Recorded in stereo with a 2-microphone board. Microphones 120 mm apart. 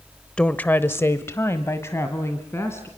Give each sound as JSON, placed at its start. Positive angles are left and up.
{"t": 0.4, "sound": "a woman speaking", "side_deg": 5, "distance_m": 0.9}